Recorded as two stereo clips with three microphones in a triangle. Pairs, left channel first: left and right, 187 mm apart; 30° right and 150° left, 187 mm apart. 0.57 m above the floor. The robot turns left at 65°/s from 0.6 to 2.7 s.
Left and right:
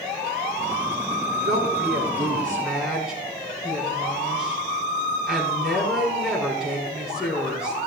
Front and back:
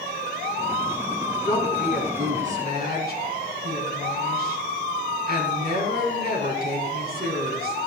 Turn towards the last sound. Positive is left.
turn(degrees=-175)